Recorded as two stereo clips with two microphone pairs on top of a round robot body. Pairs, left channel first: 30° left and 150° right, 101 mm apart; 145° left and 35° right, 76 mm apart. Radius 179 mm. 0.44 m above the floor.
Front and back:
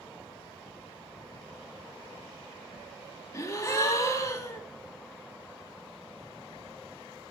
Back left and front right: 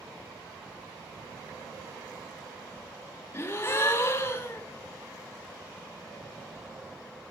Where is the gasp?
80° left, 2 m.